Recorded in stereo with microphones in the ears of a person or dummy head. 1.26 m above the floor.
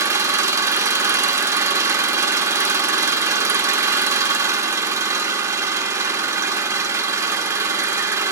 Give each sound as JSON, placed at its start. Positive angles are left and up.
{"t": 0.0, "sound": "an engine running", "side_deg": -20, "distance_m": 1.3}